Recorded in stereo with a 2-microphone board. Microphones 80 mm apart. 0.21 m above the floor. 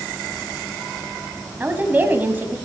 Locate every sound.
1.6 s a woman speaking: 20° right (ahead or behind), 1.5 m